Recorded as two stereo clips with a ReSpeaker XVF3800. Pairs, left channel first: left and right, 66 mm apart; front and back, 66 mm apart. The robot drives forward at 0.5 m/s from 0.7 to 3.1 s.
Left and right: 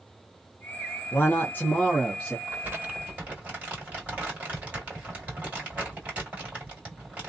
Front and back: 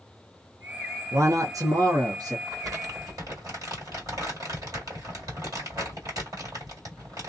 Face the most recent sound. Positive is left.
turn(degrees=-155)